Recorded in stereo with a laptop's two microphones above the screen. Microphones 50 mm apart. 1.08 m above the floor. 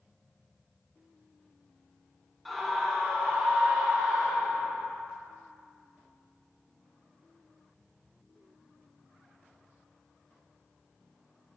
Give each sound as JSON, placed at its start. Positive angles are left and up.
{"t": 2.5, "sound": "a scream", "side_deg": 5, "distance_m": 1.5}